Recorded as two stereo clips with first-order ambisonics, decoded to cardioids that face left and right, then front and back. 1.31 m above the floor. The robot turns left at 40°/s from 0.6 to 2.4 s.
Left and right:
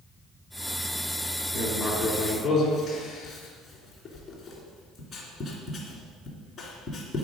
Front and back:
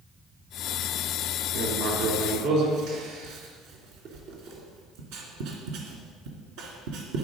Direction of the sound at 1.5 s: 160° right.